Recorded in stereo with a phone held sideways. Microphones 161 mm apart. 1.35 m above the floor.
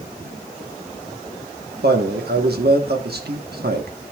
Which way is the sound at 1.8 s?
80° right.